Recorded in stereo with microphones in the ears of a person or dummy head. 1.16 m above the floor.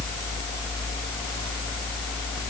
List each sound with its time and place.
Only background noise.